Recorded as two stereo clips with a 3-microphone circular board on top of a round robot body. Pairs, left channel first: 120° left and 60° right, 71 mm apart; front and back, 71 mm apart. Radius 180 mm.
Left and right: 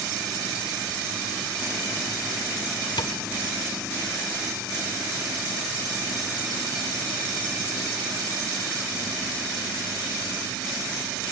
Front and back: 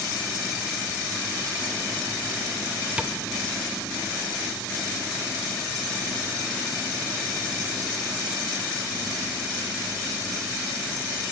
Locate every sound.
3.0 s tapping: 105° left, 1.0 m